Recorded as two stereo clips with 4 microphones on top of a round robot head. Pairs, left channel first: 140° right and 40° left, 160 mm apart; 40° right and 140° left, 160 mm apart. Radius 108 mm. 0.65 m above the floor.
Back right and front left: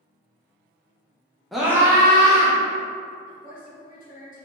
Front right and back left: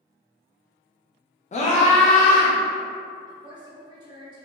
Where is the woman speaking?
160° right, 1.4 m.